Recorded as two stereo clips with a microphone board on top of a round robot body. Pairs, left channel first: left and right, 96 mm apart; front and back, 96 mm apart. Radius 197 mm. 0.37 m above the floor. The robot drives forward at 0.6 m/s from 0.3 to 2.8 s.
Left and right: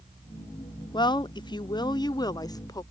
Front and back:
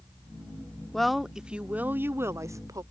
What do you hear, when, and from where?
0.9 s a woman speaking: 85° left; by 2.8 s 135° left